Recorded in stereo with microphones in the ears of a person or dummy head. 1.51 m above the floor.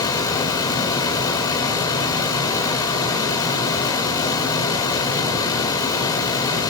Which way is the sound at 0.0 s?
20° left (ahead or behind).